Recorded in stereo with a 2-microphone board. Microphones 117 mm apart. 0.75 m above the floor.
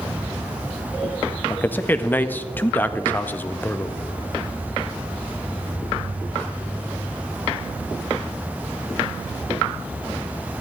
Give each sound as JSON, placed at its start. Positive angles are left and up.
{"t": 1.5, "sound": "a man speaking", "side_deg": 15, "distance_m": 0.5}